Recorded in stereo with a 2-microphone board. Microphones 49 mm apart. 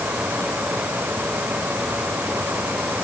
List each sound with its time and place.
Only background noise.